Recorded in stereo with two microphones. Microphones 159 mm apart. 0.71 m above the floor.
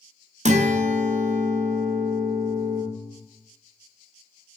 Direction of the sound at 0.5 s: 50° right (ahead or behind).